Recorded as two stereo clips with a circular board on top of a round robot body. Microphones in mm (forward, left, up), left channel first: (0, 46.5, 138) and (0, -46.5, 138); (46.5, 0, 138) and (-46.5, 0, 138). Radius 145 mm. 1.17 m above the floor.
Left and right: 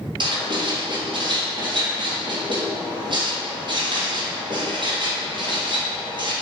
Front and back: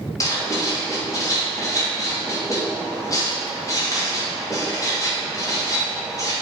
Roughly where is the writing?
Ahead right.